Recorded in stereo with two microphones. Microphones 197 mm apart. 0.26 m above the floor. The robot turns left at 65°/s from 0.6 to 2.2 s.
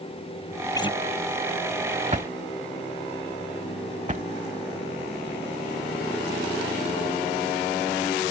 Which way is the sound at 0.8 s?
15° left (ahead or behind).